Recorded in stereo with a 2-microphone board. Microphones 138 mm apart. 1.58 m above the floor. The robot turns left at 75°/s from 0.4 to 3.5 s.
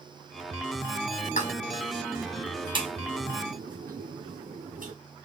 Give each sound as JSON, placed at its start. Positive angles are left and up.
{"t": 1.2, "sound": "a pop", "side_deg": 75, "distance_m": 0.9}